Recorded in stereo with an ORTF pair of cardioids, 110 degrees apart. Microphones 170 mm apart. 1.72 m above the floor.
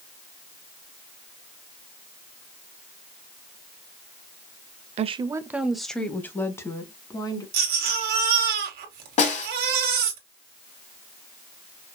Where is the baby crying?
65° right, 1.7 m.